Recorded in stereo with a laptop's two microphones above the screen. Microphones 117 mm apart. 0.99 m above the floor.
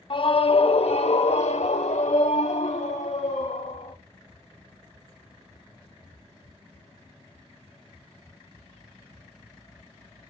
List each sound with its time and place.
0.1 s a scream: 45° left (ahead or behind), 1.1 m; by 4.0 s 80° left, 2.5 m